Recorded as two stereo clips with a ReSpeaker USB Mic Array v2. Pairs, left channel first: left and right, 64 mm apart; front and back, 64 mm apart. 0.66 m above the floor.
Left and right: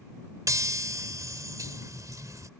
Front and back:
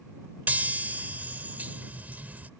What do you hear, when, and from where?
0.5 s a chime: 120° right